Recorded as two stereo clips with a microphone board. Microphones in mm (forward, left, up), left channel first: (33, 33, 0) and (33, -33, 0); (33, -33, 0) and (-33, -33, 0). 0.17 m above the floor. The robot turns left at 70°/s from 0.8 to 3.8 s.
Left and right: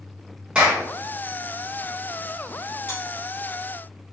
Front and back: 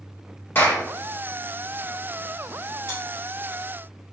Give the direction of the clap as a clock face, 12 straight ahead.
1 o'clock.